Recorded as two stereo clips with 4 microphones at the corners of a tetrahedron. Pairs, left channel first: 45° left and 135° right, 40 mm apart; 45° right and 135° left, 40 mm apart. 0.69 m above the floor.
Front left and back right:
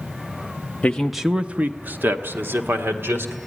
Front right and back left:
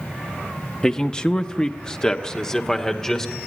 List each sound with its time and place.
0.8 s a man speaking: 5° left, 0.6 m; by 3.3 s 120° right, 2 m